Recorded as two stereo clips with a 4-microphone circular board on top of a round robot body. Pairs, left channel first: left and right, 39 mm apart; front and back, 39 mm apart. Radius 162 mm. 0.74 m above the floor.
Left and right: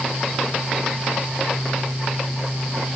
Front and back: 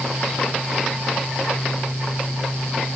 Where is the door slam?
No door slam in this recording.